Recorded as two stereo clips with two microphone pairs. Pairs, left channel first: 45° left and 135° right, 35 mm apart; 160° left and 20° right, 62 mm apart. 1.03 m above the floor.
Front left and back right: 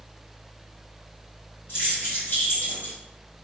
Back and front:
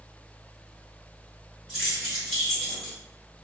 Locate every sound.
1.7 s keys jangling: 55° left, 1.4 m; by 3.0 s 85° left, 0.9 m